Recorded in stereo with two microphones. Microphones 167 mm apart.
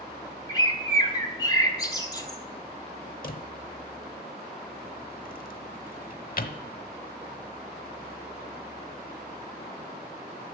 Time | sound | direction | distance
0.5 | a bird | 25° left (ahead or behind) | 1.4 m
3.2 | a drawer | 60° left (ahead or behind) | 0.9 m